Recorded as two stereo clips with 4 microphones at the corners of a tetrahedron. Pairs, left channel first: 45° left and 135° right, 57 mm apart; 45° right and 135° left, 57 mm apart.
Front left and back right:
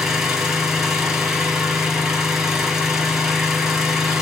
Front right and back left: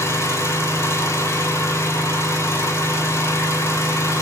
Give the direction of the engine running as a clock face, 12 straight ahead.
2 o'clock.